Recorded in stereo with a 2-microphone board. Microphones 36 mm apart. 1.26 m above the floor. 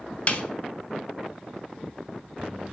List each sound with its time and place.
0.3 s a snare drum: 35° left (ahead or behind), 0.8 m